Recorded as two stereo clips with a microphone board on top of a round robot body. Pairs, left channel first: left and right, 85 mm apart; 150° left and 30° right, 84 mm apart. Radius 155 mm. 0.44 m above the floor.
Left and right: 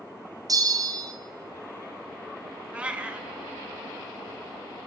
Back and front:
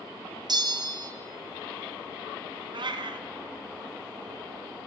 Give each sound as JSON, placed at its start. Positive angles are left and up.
{"t": 0.5, "sound": "a bell", "azimuth_deg": -55, "distance_m": 0.9}
{"t": 2.7, "sound": "a cat meowing", "azimuth_deg": -15, "distance_m": 0.7}